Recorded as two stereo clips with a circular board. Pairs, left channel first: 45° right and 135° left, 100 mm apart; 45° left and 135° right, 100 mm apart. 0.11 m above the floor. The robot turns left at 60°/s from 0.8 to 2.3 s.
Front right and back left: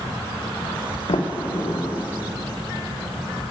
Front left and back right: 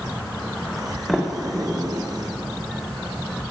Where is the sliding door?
45° right, 2.0 m; by 2.0 s 105° right, 2.0 m.